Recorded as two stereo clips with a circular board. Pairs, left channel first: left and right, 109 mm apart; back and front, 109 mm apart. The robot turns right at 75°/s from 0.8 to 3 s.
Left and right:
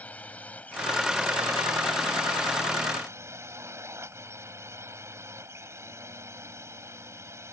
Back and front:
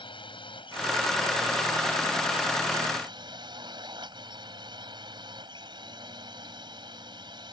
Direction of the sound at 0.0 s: 165° left.